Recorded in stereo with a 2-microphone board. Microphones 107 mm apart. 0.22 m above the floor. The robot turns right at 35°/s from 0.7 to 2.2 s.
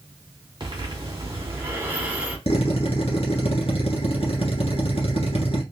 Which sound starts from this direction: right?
Breathing, at 0.6 s.